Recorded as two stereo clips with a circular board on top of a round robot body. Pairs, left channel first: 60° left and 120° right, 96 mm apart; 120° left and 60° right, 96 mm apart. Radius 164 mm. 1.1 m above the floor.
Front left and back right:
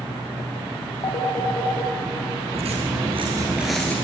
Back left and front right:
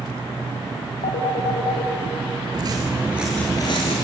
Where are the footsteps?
105° right, 1.4 m; by 4.0 s 135° left, 1.2 m.